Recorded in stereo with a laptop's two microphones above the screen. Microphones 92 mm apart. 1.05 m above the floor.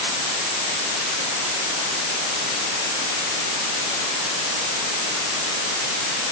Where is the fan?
I don't hear a fan.